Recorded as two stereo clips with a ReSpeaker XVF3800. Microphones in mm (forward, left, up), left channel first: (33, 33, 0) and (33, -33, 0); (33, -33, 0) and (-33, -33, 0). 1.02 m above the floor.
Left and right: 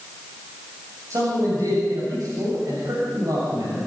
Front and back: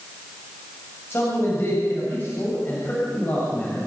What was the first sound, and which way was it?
A man speaking, 55° right.